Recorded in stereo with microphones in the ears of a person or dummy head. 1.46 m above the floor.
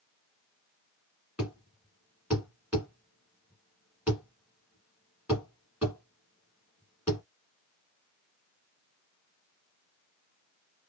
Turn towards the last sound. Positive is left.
turn(degrees=-5)  # may be behind; listen again after turning